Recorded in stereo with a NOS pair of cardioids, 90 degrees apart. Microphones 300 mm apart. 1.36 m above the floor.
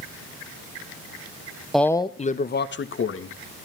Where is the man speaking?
Straight ahead, 0.9 m; by 3.4 s 45° left, 1.9 m.